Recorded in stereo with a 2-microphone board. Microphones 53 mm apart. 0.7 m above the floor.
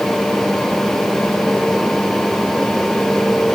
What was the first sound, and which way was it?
Only background noise.